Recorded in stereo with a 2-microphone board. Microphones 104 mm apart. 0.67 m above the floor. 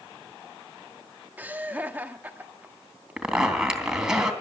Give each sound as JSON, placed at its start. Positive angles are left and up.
{"t": 1.4, "sound": "laughter", "side_deg": -15, "distance_m": 1.5}
{"t": 3.2, "sound": "a zipper", "side_deg": -5, "distance_m": 3.0}